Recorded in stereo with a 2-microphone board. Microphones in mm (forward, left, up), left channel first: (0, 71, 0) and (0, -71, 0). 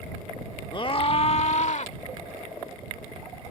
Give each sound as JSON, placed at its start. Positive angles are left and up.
{"t": 0.7, "sound": "a scream", "side_deg": 35}